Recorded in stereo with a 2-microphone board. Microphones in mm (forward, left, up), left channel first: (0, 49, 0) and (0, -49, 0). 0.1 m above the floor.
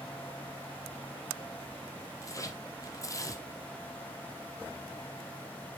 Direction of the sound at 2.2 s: 30° left (ahead or behind).